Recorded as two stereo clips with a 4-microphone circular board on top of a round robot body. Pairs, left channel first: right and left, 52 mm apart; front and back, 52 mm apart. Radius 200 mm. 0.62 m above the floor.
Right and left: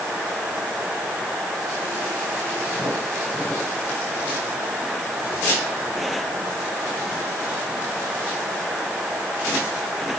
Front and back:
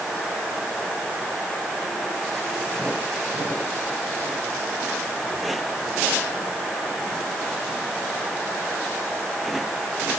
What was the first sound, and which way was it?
Only background noise.